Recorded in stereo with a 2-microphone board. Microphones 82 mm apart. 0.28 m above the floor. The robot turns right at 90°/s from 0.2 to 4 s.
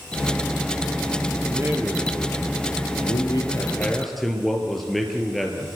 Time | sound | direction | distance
1.4 | a man speaking | 50° right | 5.5 m